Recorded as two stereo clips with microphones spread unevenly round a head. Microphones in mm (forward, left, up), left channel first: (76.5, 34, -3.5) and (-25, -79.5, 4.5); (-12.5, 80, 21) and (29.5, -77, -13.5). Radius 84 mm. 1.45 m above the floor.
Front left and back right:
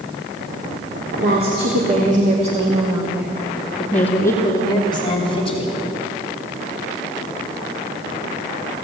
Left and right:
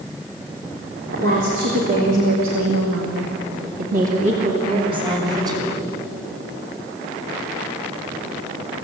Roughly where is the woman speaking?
Behind right.